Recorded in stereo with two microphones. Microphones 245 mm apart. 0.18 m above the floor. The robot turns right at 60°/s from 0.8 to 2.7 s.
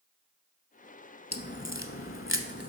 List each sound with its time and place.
1.3 s a crack: 40° left (ahead or behind), 0.8 m